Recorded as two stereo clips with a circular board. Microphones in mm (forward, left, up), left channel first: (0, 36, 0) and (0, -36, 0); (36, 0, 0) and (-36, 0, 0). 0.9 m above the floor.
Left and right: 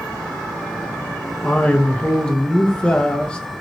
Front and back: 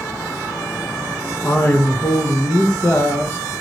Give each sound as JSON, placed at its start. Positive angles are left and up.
{"t": 1.4, "sound": "a man speaking", "azimuth_deg": 20, "distance_m": 0.6}